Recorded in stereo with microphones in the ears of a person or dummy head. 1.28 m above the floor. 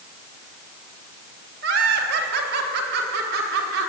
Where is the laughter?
60° right (ahead or behind), 3 m; by 3.9 s 65° right (ahead or behind), 4.5 m.